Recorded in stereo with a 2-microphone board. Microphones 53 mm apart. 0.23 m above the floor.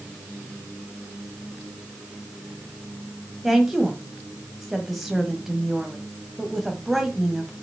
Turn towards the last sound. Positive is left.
turn(degrees=-5)  # may be behind; listen again after turning